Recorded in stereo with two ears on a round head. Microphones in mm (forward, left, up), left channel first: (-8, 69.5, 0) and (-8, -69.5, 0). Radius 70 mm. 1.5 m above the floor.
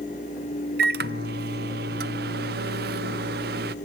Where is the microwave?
70° right (ahead or behind), 0.6 m.